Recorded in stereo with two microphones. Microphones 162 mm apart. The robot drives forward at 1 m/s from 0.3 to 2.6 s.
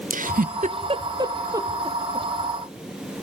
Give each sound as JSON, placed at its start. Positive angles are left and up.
{"t": 0.1, "sound": "a giggle", "side_deg": -60, "distance_m": 0.6}